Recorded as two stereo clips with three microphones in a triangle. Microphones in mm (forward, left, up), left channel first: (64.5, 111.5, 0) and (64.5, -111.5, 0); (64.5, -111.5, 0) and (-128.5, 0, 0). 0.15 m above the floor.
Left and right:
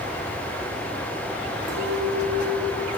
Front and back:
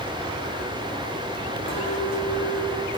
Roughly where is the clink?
Ahead right.